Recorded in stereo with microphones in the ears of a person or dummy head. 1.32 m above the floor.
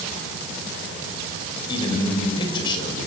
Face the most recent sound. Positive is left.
turn(degrees=25)  # may be behind; listen again after turning